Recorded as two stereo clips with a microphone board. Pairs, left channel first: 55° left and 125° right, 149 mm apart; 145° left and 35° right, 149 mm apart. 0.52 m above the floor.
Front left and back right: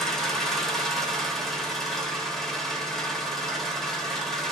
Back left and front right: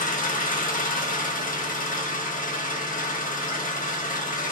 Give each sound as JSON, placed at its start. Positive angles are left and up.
{"t": 0.0, "sound": "an engine running", "azimuth_deg": 145, "distance_m": 0.7}